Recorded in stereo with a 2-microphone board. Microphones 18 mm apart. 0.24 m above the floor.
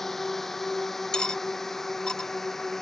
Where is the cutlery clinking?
50° left (ahead or behind).